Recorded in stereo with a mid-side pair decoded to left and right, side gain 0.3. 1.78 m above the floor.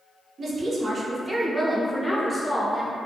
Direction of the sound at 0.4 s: 70° right.